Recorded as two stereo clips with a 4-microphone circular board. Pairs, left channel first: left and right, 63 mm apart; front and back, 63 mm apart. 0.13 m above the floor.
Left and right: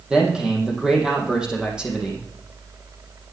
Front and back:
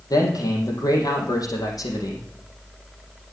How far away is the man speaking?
About 4.5 m.